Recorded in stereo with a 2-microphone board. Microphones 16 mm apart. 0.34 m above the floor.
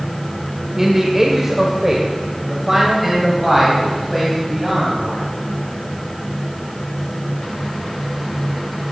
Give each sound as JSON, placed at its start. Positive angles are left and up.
{"t": 0.8, "sound": "a man speaking", "side_deg": -25, "distance_m": 1.3}